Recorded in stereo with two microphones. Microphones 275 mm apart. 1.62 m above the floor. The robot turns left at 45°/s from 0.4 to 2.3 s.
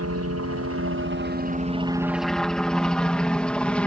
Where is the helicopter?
60° right (ahead or behind); by 3.9 s 5° left (ahead or behind).